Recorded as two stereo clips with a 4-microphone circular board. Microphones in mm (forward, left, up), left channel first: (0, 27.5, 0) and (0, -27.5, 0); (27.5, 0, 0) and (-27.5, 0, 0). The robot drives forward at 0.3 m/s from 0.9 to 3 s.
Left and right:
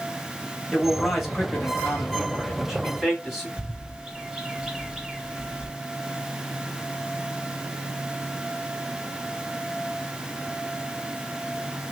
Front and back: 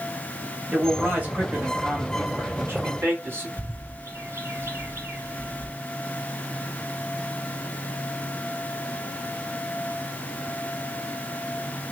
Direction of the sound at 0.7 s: Straight behind.